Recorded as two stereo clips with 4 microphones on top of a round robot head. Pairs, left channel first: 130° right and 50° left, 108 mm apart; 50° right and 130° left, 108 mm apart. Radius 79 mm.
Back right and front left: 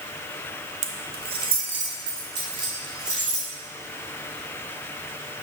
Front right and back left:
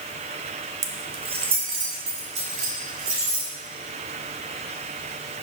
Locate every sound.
0.8 s keys jangling: 70° left, 0.6 m; by 3.5 s 105° left, 3.5 m